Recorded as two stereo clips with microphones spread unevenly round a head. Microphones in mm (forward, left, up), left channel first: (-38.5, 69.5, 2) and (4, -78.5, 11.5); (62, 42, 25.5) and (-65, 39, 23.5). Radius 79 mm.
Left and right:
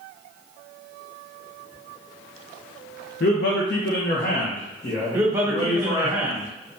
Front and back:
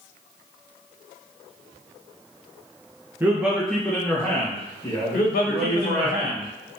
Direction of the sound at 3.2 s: 110° left.